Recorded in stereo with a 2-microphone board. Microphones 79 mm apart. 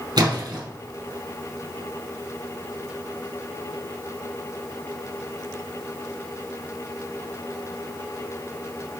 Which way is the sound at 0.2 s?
60° right (ahead or behind).